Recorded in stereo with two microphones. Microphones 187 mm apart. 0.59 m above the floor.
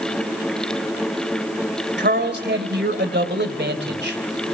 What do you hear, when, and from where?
2.0 s a man speaking: 70° right (ahead or behind), 2.5 m